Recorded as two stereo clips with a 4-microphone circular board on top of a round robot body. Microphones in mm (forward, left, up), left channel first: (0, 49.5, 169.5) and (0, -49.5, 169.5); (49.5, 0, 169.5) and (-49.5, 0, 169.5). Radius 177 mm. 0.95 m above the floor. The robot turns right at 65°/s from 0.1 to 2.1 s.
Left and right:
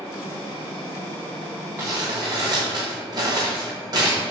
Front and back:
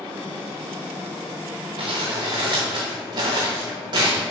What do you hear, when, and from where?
1.8 s crumpling: 160° right, 0.8 m; by 4.2 s 140° right, 0.8 m